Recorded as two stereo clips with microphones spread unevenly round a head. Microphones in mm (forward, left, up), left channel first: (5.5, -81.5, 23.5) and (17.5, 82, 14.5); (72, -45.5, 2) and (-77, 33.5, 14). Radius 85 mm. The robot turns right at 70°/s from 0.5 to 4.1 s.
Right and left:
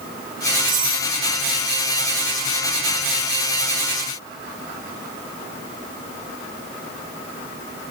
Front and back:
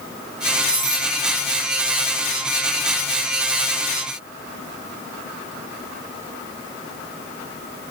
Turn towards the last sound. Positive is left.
turn(degrees=-55)